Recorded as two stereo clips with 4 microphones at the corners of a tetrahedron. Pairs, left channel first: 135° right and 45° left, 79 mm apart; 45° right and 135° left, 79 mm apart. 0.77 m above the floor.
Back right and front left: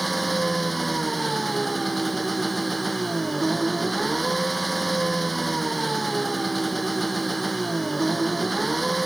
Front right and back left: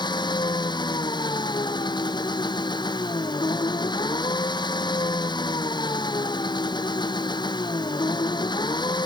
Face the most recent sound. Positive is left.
turn(degrees=-45)